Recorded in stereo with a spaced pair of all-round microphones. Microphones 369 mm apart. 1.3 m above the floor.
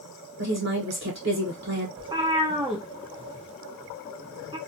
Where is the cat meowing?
15° right (ahead or behind), 1.0 m.